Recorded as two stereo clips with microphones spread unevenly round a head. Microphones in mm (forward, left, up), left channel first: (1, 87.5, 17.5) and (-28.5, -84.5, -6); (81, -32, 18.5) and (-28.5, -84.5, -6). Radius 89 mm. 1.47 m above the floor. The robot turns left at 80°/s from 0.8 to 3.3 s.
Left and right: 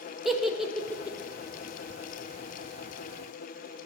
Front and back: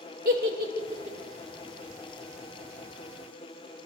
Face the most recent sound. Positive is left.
turn(degrees=-30)